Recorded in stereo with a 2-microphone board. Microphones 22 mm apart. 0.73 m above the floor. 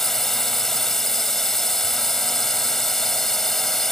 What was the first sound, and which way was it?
A drone, 15° left (ahead or behind).